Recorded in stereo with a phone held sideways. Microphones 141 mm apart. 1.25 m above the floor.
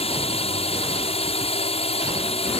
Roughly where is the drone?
Left.